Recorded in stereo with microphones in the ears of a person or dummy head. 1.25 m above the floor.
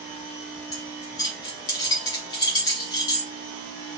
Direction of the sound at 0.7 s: 25° left (ahead or behind).